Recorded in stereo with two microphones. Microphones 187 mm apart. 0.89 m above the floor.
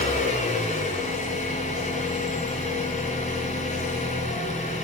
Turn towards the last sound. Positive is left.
turn(degrees=40)  # may be behind; listen again after turning